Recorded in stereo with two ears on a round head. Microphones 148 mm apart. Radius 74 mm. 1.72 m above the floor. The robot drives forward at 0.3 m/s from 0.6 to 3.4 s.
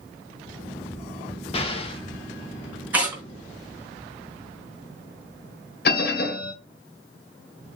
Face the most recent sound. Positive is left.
turn(degrees=65)  # may be behind; listen again after turning